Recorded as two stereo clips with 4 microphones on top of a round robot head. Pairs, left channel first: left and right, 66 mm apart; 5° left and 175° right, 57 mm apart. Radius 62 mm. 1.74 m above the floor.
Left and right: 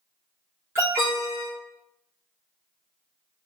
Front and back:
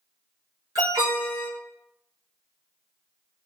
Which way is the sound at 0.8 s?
155° right.